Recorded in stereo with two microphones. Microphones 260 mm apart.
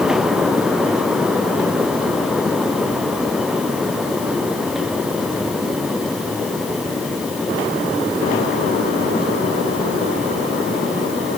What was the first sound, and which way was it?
Only background noise.